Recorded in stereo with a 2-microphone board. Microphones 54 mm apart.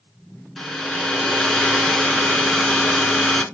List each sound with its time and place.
0.6 s a hair dryer: 5° left (ahead or behind), 1.6 m